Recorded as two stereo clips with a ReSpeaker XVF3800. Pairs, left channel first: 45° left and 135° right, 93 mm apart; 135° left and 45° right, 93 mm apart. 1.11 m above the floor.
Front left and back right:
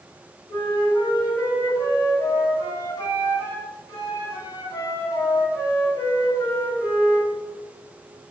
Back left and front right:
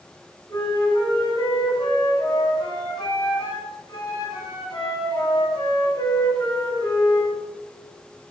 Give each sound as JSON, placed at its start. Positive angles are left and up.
{"t": 0.5, "sound": "a flute", "azimuth_deg": 95, "distance_m": 3.0}